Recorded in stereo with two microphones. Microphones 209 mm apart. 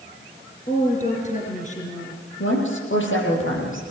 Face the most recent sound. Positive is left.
turn(degrees=75)  # may be behind; listen again after turning